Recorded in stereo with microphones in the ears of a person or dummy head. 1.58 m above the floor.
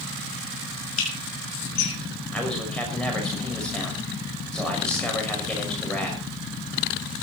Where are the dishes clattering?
80° left, 6.5 m.